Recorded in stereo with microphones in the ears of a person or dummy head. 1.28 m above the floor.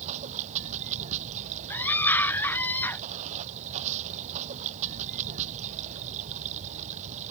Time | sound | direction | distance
0.0 | running water | 40° right (ahead or behind) | ?
1.7 | a scream | 10° left (ahead or behind) | ?